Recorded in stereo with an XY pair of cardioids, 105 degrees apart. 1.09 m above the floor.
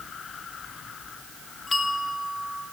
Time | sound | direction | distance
1.7 | a bell | 25° left | 2.5 m